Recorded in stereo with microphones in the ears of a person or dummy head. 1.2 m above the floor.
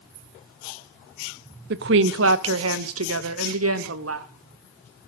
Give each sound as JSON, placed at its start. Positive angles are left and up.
{"t": 1.7, "sound": "a woman speaking", "side_deg": -60, "distance_m": 0.6}